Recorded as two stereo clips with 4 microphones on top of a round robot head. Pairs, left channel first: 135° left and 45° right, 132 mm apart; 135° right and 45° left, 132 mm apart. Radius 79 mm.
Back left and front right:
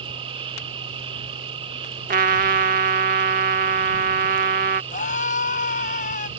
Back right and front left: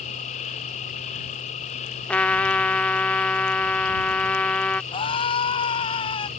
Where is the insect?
95° right.